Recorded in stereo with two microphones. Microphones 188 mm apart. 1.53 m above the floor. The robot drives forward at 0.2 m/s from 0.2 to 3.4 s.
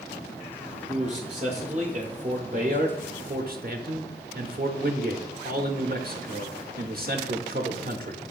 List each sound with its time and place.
0.9 s a man speaking: 30° right (ahead or behind), 0.9 m; by 8.2 s 55° right (ahead or behind), 0.5 m